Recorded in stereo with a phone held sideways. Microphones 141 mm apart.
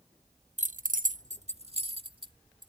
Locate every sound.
0.6 s keys jangling: 55° right (ahead or behind); by 2.7 s 35° right (ahead or behind)